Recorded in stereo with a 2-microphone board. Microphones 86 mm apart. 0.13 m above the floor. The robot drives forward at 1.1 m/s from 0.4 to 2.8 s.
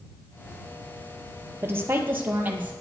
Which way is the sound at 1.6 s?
30° right (ahead or behind).